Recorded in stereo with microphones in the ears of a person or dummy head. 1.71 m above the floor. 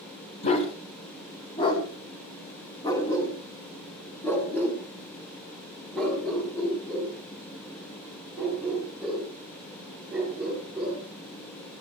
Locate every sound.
0.4 s a dog barking: 40° left (ahead or behind), 4 m; by 11.0 s 5° right (ahead or behind), 9 m